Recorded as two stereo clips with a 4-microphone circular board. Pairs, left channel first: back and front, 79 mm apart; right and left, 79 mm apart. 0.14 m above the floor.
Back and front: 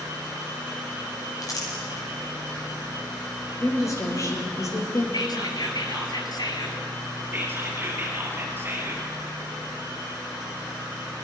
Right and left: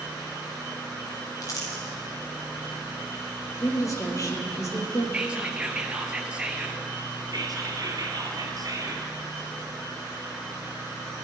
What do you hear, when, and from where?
1.4 s crumpling: 135° right, 5 m
3.6 s a woman speaking: 135° right, 4 m
5.1 s whispering: 165° left, 2 m
7.3 s whispering: 60° left, 2.5 m